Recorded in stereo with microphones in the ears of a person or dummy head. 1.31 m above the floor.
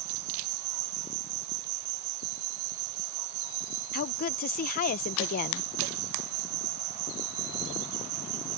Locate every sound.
0.0 s an insect: 75° right (ahead or behind)
3.9 s a woman speaking: 50° left (ahead or behind)